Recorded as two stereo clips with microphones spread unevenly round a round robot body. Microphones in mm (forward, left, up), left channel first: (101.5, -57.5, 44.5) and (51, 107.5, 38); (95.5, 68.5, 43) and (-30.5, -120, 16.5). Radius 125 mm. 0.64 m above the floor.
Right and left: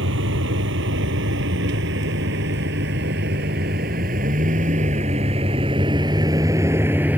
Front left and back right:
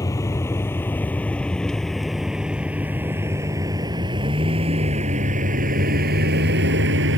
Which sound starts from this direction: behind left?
A vehicle, at 0.0 s.